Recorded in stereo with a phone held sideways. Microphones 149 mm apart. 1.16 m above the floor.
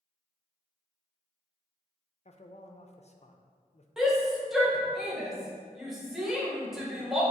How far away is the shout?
About 1.3 m.